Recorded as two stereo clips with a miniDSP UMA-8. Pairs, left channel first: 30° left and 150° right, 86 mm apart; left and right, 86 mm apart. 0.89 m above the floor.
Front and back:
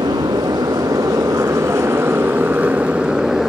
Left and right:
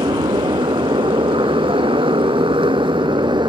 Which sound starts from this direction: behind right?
A motorcycle, at 0.0 s.